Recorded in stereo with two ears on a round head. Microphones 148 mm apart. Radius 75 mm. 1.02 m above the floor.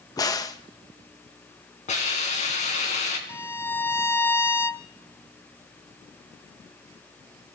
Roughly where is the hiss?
Left.